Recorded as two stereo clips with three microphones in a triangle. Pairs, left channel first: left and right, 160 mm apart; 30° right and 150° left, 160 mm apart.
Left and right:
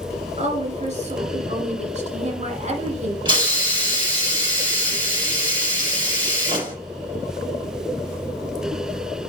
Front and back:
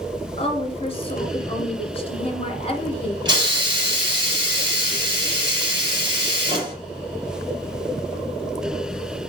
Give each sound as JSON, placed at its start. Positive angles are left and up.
{"t": 0.4, "sound": "a woman speaking", "azimuth_deg": -70, "distance_m": 2.0}
{"t": 3.2, "sound": "a hiss", "azimuth_deg": -145, "distance_m": 4.0}